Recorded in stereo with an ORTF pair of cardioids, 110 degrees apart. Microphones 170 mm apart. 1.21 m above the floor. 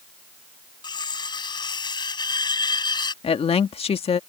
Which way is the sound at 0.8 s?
25° left.